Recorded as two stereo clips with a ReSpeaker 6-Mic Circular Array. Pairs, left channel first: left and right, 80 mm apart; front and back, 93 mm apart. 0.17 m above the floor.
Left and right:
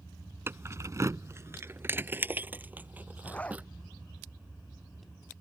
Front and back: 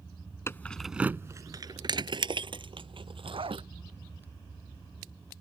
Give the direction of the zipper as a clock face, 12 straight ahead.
7 o'clock.